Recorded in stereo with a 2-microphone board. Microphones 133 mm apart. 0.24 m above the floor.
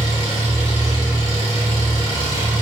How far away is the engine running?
About 1.5 m.